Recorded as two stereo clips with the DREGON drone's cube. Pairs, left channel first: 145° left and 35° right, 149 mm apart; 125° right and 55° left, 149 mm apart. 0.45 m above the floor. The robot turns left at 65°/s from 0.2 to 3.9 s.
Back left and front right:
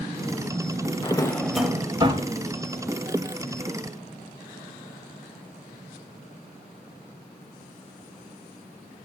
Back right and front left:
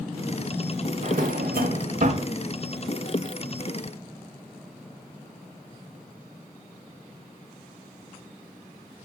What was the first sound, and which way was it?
A drawer, 90° left.